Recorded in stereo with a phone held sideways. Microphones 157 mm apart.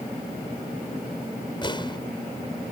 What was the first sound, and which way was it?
An explosion, 30° left (ahead or behind).